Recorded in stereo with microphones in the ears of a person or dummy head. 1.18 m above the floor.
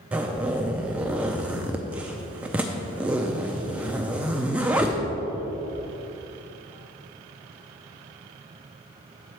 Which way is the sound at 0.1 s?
10° right (ahead or behind).